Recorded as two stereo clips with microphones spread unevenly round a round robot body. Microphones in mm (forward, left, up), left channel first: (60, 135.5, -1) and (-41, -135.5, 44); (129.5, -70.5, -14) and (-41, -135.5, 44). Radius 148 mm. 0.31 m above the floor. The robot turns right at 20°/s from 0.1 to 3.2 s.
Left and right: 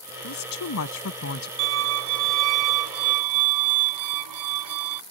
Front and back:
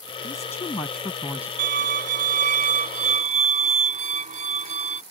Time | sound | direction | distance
0.2 | a woman speaking | 85° left | ?
1.6 | a violin | 150° right | ?